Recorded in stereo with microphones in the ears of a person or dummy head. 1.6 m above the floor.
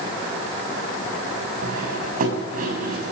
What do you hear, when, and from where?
1.6 s cutlery clinking: 50° right (ahead or behind), 6.5 m